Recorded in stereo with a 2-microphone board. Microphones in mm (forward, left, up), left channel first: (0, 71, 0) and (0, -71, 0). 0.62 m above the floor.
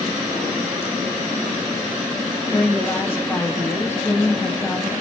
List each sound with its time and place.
2.5 s a woman speaking: 15° left (ahead or behind), 0.5 m